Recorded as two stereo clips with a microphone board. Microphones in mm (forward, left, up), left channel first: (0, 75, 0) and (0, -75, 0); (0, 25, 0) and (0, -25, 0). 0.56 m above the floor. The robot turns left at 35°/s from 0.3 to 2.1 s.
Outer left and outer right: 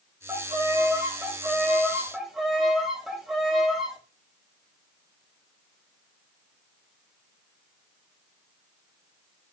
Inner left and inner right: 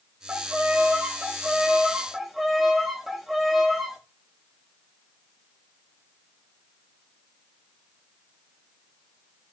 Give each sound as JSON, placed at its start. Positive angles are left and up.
{"t": 0.3, "sound": "a violin", "side_deg": -25, "distance_m": 0.5}